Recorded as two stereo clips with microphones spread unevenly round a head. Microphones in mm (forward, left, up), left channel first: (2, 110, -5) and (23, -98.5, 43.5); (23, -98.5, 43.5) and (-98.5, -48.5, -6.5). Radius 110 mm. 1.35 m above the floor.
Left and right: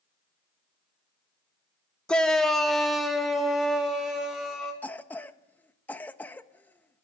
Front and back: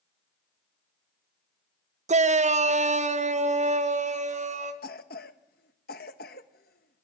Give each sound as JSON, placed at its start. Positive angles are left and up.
{"t": 2.1, "sound": "a shout", "azimuth_deg": 180, "distance_m": 1.1}
{"t": 4.8, "sound": "a cough", "azimuth_deg": 10, "distance_m": 1.4}